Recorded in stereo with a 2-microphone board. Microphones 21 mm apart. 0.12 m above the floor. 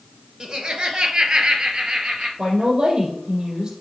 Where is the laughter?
40° right (ahead or behind), 1.5 m.